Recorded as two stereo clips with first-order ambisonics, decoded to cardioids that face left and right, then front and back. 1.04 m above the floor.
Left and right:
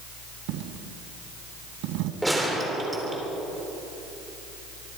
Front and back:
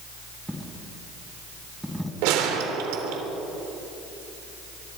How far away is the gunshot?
About 3 m.